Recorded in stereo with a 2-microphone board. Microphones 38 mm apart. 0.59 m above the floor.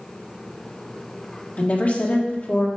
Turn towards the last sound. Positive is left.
turn(degrees=45)  # may be behind; listen again after turning